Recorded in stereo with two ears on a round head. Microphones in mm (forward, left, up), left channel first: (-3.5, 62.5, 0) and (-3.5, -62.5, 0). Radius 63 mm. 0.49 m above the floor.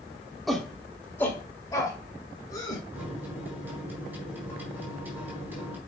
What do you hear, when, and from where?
0.5 s a shout: centre (ahead or behind), 1.1 m; by 2.8 s 30° left (ahead or behind), 3 m
2.9 s a microwave: 15° right (ahead or behind), 4 m